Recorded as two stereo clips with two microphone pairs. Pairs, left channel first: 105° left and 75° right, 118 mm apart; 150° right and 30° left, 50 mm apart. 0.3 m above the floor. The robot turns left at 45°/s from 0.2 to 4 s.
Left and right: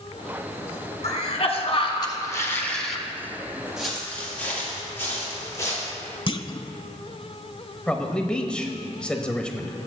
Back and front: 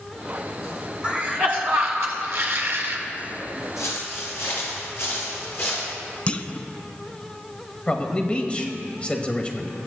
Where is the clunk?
150° left, 0.6 m.